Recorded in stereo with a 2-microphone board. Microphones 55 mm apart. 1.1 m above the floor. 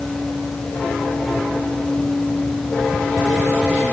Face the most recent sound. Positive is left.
No sound to turn to.